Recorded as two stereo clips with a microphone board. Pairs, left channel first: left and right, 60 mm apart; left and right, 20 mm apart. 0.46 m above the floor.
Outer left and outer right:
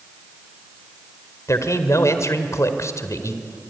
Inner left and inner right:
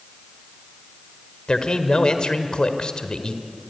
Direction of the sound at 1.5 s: 55° left (ahead or behind).